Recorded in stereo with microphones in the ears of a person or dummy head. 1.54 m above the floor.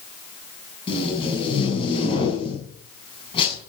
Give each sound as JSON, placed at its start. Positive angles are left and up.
{"t": 0.9, "sound": "tape being pulled", "side_deg": 30, "distance_m": 7.0}